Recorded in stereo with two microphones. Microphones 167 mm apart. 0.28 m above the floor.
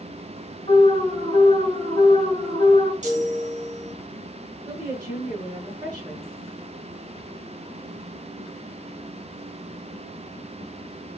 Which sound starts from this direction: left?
An alarm, at 0.7 s.